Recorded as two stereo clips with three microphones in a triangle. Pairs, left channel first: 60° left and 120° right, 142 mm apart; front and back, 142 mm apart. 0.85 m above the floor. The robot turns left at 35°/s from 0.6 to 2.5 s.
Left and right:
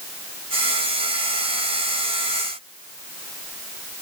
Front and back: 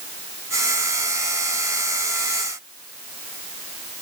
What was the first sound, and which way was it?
Only background noise.